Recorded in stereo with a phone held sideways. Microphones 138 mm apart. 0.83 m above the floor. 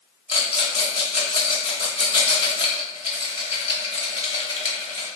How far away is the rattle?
About 1.0 m.